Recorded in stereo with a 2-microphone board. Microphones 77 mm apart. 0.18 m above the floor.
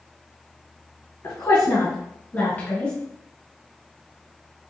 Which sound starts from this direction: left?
A woman speaking, at 1.2 s.